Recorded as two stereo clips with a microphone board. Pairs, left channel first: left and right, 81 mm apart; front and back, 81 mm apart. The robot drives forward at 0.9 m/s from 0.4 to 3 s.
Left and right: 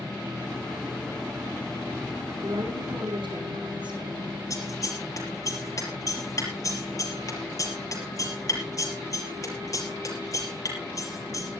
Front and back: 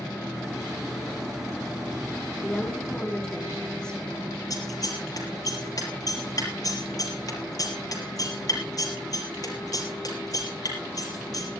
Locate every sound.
2.4 s a woman speaking: 75° right, 4.5 m; by 4.3 s 80° right, 4.5 m
4.5 s scissors: 45° left, 5.5 m